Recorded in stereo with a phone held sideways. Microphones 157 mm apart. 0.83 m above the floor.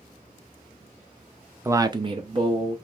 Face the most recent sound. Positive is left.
turn(degrees=-30)  # may be behind; listen again after turning